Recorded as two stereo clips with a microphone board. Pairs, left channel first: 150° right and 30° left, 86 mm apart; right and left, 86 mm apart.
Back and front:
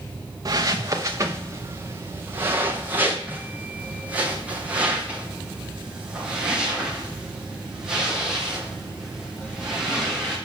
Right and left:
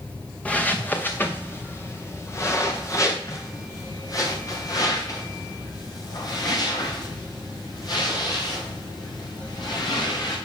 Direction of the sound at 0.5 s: 15° right.